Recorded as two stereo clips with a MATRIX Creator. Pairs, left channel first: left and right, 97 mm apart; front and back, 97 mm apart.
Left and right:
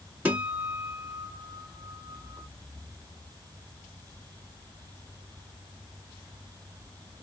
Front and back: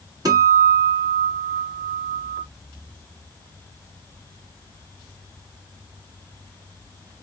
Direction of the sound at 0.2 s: 155° right.